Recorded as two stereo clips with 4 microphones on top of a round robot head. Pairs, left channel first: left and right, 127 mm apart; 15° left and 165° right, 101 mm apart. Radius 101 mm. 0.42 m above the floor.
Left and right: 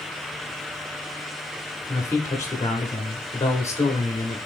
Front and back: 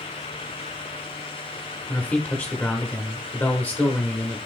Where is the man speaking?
60° left, 0.9 m.